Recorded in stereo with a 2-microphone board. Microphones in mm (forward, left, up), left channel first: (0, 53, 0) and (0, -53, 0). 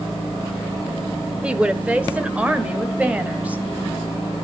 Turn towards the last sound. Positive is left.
turn(degrees=-15)  # may be behind; listen again after turning